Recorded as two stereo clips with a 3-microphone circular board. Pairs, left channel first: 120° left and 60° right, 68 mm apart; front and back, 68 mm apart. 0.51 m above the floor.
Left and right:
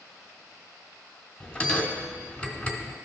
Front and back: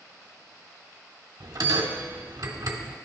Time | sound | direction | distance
1.4 | a bell | 165° right | 1.0 m